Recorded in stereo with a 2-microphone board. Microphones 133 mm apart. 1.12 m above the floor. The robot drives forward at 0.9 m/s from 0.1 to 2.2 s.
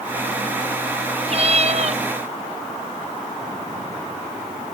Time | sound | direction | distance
1.3 | a cat meowing | 50° right (ahead or behind) | ?